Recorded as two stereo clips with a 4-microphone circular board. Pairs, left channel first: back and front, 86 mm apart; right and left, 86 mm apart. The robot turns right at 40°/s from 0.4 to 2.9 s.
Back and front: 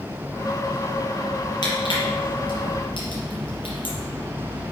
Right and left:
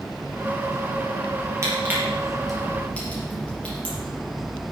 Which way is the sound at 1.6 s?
145° left.